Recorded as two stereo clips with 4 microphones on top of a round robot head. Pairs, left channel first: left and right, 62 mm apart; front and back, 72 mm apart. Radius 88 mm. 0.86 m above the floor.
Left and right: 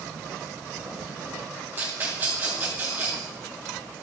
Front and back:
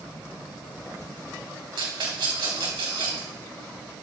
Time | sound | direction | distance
1.8 | a rattle | 155° right | 4.5 m